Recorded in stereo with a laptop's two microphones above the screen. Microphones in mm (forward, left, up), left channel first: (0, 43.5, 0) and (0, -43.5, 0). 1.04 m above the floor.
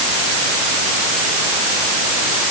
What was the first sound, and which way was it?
Only background noise.